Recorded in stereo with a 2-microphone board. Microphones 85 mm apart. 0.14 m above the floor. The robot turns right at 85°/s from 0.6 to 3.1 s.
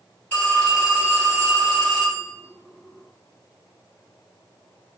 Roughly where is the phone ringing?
Behind.